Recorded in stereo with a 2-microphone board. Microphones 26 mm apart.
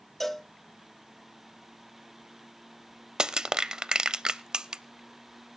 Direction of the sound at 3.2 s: 30° right (ahead or behind).